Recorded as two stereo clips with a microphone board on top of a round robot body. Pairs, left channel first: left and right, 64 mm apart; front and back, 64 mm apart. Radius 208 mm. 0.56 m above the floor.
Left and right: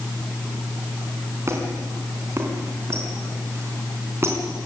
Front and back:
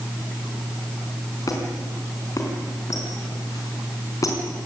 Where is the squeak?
40° right, 4 m.